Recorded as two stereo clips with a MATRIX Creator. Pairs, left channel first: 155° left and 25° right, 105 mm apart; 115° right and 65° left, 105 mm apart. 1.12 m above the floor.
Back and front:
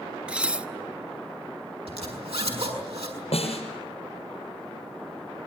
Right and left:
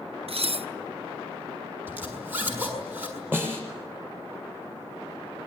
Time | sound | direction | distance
0.3 | dishes clattering | 55° left | 0.8 m
1.9 | a zipper | 5° right | 7 m
3.3 | a snare drum | 140° left | 6.5 m